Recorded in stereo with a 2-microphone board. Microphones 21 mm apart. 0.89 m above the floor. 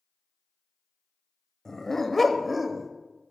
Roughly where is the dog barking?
Left.